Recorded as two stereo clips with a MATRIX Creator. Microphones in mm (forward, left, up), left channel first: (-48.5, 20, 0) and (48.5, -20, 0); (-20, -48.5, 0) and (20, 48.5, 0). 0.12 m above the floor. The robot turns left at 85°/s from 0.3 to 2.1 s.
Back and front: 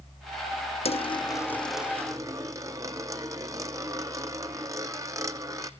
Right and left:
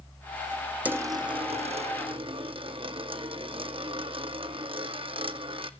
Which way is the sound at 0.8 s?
140° left.